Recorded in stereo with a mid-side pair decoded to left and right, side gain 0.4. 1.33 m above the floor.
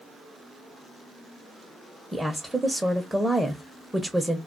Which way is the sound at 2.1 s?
10° right.